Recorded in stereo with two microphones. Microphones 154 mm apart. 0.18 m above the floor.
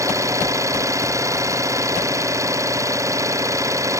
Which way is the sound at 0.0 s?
20° right (ahead or behind).